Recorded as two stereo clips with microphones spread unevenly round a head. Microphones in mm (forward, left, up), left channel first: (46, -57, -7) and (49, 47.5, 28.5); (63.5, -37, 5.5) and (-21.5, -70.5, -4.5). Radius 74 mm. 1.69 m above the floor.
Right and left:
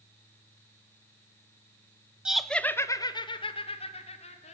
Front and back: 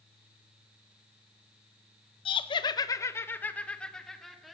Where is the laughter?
15° left, 1.3 m; by 4.5 s 70° right, 3 m.